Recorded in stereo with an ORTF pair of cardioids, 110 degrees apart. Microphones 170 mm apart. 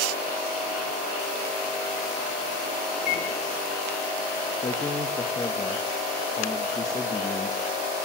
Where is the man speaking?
20° left, 0.8 m.